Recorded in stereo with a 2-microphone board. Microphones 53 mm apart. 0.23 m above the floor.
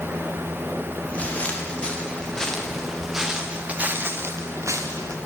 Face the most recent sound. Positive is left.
turn(degrees=-80)